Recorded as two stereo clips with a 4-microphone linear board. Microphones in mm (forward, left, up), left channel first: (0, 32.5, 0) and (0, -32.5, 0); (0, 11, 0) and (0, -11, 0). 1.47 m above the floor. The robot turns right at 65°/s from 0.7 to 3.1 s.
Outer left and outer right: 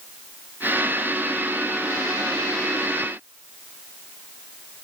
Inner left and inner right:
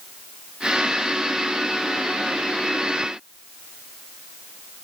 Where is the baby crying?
I don't hear a baby crying.